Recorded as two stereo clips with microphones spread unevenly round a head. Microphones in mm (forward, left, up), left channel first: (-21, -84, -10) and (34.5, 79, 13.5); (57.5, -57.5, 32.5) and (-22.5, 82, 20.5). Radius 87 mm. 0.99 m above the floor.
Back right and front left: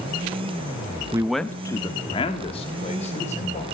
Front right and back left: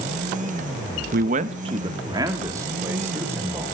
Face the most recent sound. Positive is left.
turn(degrees=-160)